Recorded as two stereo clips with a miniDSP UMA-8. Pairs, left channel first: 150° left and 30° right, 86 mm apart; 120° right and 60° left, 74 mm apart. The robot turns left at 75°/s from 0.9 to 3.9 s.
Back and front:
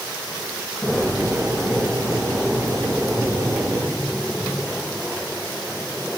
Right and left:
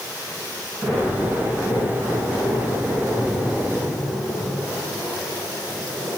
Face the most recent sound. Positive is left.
No sound to turn to.